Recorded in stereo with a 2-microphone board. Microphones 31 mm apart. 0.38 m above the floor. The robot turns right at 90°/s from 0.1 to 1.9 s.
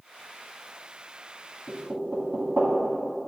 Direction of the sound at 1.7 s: 70° right (ahead or behind).